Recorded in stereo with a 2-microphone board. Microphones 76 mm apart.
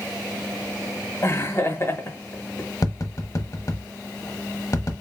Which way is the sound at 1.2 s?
35° left (ahead or behind).